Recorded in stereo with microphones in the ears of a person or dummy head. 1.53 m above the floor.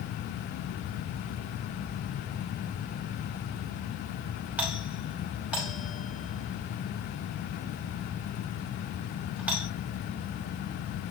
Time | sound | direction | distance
4.6 | a doorbell | 5° right (ahead or behind) | 5 m